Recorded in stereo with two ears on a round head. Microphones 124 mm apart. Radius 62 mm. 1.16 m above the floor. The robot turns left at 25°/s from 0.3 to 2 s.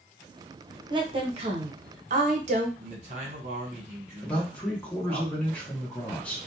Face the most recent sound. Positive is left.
turn(degrees=10)  # may be behind; listen again after turning